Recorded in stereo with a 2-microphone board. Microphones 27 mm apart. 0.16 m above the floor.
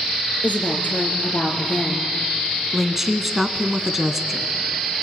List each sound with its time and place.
0.4 s a woman speaking: 65° left (ahead or behind), 3 m
2.7 s a woman speaking: 10° right (ahead or behind), 1.2 m